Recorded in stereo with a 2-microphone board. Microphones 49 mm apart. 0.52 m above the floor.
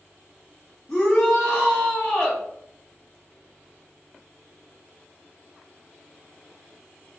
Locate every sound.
0.9 s a shout: 15° left (ahead or behind), 0.8 m